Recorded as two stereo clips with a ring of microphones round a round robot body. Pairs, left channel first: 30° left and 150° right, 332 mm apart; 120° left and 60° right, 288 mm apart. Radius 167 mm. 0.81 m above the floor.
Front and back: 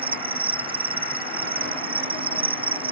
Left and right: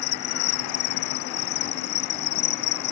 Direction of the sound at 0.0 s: 135° left.